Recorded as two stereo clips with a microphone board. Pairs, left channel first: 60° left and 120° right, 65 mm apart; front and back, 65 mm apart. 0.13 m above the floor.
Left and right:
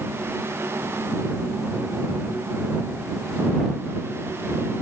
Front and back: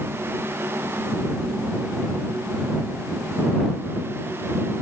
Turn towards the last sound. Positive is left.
No sound to turn to.